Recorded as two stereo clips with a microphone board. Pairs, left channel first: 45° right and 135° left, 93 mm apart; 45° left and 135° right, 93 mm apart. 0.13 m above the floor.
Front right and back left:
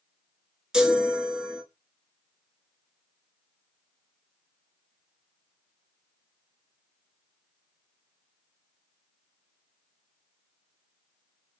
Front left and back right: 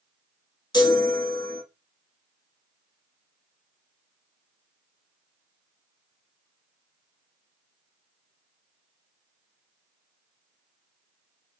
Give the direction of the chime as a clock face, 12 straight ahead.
10 o'clock.